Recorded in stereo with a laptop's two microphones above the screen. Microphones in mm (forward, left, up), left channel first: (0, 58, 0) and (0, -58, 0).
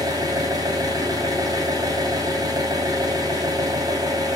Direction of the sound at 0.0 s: 35° right (ahead or behind).